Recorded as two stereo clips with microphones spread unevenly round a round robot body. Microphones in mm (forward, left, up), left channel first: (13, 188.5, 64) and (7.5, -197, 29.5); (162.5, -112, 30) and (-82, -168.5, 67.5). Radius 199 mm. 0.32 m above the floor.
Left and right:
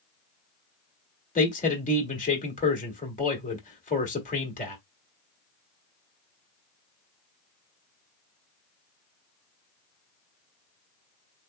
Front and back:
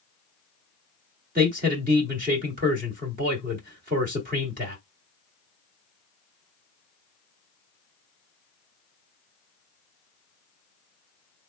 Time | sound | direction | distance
1.4 | a man speaking | 155° left | 1.8 m